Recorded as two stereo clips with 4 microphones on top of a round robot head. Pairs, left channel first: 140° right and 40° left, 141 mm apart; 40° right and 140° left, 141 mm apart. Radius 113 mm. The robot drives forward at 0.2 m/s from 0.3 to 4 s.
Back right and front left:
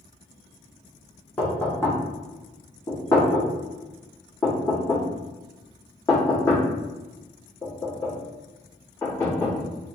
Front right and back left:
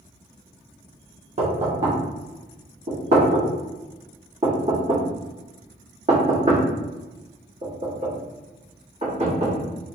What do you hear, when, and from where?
1.4 s knocking: 145° left, 1.2 m; by 9.7 s 155° left, 1.6 m